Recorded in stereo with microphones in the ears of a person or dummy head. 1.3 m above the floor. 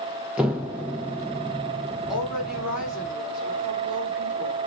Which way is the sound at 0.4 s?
10° right (ahead or behind).